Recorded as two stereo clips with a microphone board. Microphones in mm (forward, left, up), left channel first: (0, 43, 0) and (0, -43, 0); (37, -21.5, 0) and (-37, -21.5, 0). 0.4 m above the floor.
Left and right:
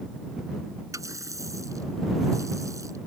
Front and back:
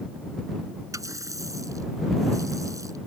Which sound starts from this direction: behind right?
A running tap, at 0.9 s.